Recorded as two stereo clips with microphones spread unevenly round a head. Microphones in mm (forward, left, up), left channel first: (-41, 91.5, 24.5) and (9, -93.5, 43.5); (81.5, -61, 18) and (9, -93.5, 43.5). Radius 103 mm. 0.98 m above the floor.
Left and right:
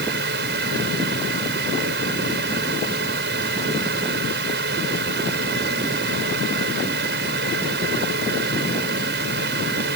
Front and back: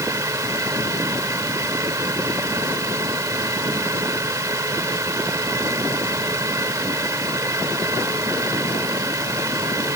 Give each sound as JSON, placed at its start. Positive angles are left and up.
{"t": 0.0, "sound": "a fan", "azimuth_deg": -105}